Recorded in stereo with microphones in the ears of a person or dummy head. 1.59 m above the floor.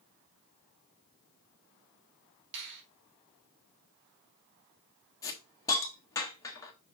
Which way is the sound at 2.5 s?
65° right (ahead or behind).